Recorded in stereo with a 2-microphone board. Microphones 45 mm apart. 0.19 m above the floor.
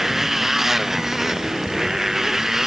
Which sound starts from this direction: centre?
A motorcycle, at 0.0 s.